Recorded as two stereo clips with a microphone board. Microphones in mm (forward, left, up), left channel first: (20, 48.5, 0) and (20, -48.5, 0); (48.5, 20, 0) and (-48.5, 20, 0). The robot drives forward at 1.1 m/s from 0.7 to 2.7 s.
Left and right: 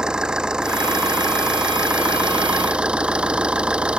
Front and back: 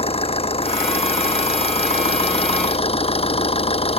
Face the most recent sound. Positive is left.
turn(degrees=-10)